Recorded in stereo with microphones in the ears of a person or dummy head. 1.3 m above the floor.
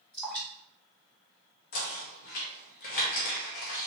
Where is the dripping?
5° left (ahead or behind), 1.7 m.